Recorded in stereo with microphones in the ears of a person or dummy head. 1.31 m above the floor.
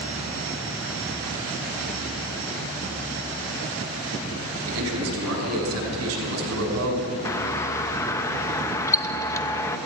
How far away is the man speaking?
About 7 m.